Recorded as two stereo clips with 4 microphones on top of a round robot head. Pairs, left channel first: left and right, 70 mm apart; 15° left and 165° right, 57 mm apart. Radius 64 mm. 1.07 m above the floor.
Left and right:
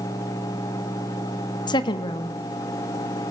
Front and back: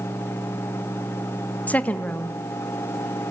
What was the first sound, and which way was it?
A woman speaking, 75° left.